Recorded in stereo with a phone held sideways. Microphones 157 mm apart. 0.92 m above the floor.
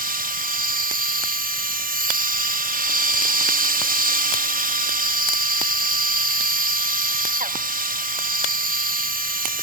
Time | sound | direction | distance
0.0 | a machine running | 60° right (ahead or behind) | 0.8 m